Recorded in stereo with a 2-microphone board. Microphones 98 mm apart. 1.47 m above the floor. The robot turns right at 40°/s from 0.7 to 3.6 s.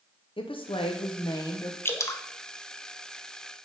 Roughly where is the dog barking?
No dog barking in this recording.